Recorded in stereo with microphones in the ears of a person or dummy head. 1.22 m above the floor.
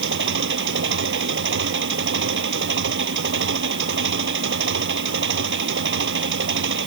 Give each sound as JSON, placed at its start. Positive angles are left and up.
{"t": 0.0, "sound": "an engine running", "side_deg": -65}